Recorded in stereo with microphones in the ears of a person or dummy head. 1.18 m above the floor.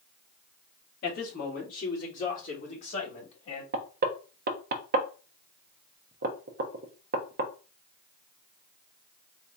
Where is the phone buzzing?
No phone buzzing in this recording.